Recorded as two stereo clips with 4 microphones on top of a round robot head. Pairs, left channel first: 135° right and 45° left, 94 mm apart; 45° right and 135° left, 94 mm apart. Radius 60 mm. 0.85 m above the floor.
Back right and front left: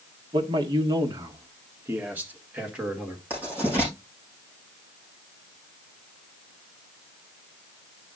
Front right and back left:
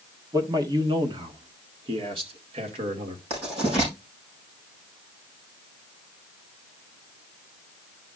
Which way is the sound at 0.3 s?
85° left.